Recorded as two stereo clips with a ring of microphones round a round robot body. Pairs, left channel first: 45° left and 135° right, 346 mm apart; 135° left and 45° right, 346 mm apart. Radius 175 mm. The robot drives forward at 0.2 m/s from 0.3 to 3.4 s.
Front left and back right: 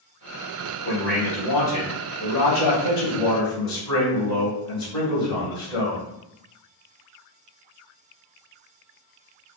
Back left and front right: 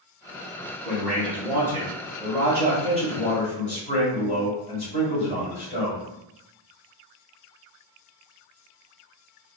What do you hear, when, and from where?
0.8 s a man speaking: 45° left, 1.2 m; by 6.0 s 105° left, 1.2 m